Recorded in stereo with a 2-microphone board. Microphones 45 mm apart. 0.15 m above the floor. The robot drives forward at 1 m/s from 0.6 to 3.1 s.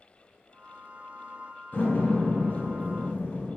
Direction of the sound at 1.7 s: 40° left (ahead or behind).